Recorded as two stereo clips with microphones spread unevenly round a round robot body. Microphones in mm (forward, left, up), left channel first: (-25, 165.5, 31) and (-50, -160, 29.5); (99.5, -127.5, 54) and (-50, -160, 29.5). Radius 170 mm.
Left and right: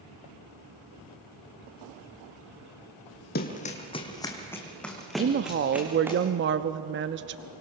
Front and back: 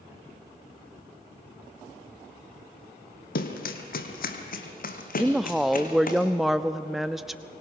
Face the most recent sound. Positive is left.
turn(degrees=-95)